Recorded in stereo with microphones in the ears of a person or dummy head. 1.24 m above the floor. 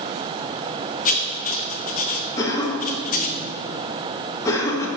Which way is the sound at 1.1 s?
35° left (ahead or behind).